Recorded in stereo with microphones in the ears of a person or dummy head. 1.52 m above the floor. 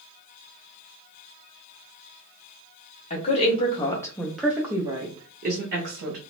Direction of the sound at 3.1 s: 40° left (ahead or behind).